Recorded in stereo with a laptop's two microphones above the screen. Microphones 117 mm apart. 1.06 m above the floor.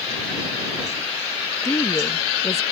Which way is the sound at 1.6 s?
25° left (ahead or behind).